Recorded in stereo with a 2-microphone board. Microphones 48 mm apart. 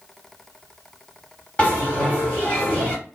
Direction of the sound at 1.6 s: 25° left (ahead or behind).